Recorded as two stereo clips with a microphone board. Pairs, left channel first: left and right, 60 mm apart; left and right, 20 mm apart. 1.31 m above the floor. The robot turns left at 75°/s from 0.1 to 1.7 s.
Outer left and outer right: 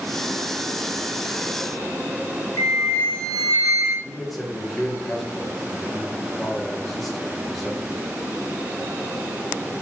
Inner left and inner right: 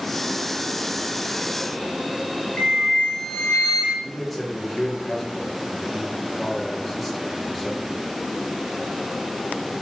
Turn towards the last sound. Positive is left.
turn(degrees=5)  # may be behind; listen again after turning